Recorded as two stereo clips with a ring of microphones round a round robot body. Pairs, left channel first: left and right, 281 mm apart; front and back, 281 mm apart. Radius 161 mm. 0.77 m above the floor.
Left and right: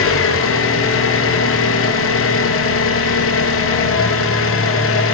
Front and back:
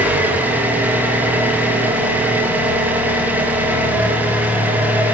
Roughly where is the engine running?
Left.